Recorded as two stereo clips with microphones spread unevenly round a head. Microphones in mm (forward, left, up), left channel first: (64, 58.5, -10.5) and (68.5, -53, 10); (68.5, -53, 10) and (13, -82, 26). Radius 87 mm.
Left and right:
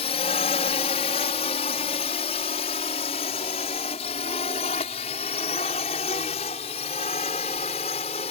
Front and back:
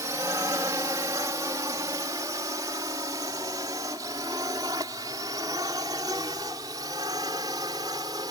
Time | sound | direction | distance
0.0 | a drone | 145° left | ?